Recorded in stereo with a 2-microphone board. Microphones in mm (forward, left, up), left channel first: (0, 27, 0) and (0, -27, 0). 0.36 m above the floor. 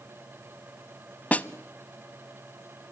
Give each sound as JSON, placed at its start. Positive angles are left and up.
{"t": 1.3, "sound": "a snare drum", "side_deg": 25, "distance_m": 0.6}